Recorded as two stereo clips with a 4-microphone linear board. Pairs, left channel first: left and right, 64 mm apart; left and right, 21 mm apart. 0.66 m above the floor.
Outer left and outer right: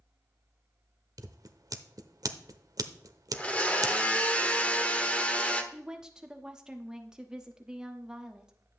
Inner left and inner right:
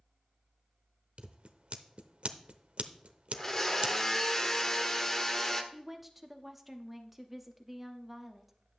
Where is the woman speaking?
10° right (ahead or behind), 1.1 m.